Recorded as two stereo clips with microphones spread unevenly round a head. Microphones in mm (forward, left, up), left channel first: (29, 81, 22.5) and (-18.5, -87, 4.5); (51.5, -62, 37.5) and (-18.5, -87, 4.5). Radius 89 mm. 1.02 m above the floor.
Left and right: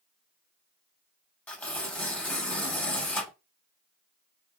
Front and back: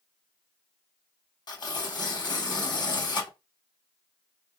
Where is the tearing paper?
5° right, 2.5 m.